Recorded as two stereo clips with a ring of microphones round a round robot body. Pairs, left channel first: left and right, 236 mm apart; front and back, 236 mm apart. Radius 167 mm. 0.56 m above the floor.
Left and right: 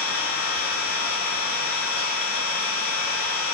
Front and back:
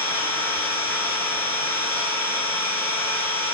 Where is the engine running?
85° left, 1.1 m.